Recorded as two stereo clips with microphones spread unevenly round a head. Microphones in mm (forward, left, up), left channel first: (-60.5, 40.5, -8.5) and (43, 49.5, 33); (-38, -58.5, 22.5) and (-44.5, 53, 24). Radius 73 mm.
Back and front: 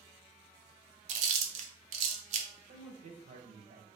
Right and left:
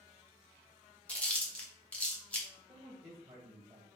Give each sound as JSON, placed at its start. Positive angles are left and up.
{"t": 1.1, "sound": "chewing", "azimuth_deg": -10, "distance_m": 0.7}
{"t": 2.7, "sound": "a man speaking", "azimuth_deg": 20, "distance_m": 0.7}